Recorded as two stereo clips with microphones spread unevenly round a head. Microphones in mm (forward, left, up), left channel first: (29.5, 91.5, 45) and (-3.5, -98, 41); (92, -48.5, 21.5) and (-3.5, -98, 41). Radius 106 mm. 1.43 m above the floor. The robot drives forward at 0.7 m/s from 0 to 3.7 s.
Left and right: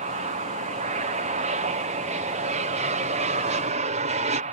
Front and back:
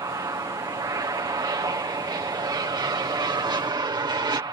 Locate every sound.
0.0 s an aircraft: 115° right; by 4.5 s 125° right